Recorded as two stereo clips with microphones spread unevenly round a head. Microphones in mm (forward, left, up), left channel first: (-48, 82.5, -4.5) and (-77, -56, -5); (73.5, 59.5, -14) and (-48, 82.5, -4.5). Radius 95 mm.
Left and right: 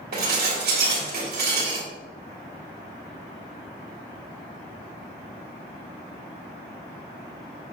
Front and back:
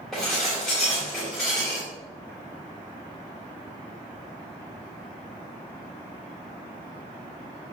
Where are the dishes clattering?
100° right, 2.5 m.